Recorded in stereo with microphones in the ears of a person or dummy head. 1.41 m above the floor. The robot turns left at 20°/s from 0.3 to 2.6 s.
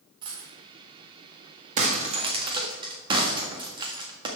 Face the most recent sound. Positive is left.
turn(degrees=-30)  # may be behind; listen again after turning